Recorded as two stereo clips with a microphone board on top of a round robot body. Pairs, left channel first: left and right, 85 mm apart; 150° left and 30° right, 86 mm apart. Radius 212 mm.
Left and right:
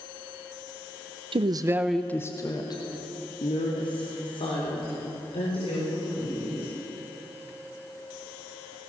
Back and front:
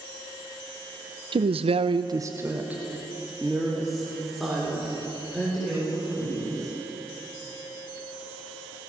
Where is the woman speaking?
60° right, 0.9 m; by 6.7 s 65° left, 7 m.